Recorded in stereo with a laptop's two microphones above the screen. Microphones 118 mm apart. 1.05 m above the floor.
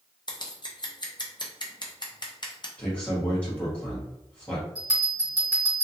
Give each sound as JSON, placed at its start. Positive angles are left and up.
{"t": 0.3, "sound": "scissors", "side_deg": 40, "distance_m": 0.6}
{"t": 2.8, "sound": "a man speaking", "side_deg": 10, "distance_m": 1.2}
{"t": 4.8, "sound": "a bell", "side_deg": 35, "distance_m": 1.9}